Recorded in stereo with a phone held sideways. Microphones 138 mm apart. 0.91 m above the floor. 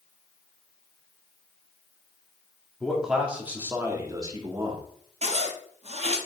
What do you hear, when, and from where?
2.8 s a man speaking: centre (ahead or behind), 2.5 m; by 4.9 s 40° right (ahead or behind), 2.5 m
5.2 s a zipper: 50° right (ahead or behind), 1.3 m